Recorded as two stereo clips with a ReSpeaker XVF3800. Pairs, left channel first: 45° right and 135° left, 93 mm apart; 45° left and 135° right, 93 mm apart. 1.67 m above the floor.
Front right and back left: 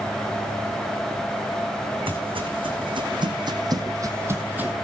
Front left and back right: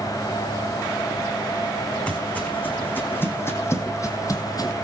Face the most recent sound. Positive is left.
turn(degrees=65)